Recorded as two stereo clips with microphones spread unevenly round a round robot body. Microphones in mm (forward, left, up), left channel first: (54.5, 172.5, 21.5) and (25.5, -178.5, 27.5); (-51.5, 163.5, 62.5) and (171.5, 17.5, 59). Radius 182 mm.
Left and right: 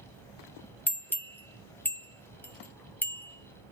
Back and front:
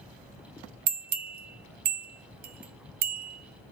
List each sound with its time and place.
0.9 s a bell: straight ahead, 0.6 m